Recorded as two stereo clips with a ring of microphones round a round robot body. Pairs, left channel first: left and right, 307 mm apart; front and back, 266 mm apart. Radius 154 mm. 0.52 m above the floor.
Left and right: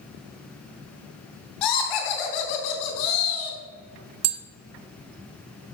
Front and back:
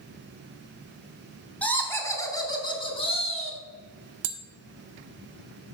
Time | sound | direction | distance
1.6 | laughter | 85° left | 3.5 m
4.2 | tapping | 140° right | 1.0 m